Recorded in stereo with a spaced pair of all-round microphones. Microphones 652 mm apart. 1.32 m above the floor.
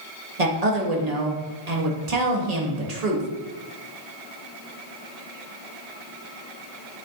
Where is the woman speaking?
80° right, 1.7 m.